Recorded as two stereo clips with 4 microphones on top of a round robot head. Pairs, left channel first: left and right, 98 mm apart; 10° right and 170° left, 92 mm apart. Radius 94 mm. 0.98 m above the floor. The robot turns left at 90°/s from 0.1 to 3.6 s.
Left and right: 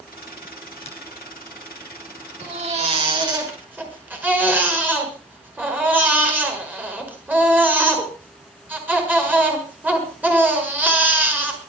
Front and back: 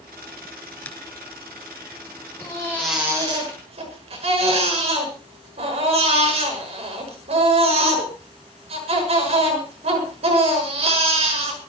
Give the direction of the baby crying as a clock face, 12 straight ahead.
2 o'clock.